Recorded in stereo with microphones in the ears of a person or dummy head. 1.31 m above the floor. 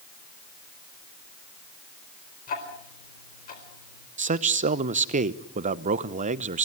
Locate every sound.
2.5 s ticking: 45° left (ahead or behind), 4 m
4.2 s a man speaking: 40° right (ahead or behind), 0.9 m